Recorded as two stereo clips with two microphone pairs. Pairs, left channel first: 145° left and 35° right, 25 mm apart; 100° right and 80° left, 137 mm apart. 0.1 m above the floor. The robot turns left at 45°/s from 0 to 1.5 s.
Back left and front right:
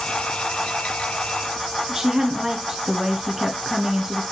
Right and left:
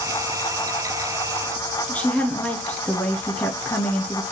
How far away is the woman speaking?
About 1.3 m.